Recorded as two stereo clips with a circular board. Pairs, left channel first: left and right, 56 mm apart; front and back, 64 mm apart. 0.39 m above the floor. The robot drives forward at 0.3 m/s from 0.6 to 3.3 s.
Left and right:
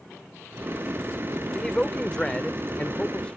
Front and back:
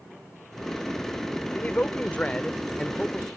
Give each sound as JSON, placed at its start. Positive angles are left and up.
{"t": 1.5, "sound": "a man speaking", "azimuth_deg": 25}